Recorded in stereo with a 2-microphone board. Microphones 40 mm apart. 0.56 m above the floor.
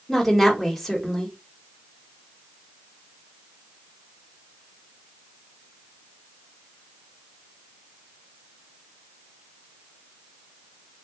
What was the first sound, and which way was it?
A woman speaking, 5° left (ahead or behind).